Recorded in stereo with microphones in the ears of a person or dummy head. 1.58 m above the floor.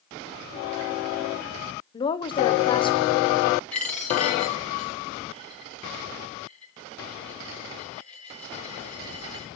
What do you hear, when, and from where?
1.9 s a woman speaking: 25° left (ahead or behind), 0.9 m
3.7 s a dropped coin: 5° left (ahead or behind), 3.5 m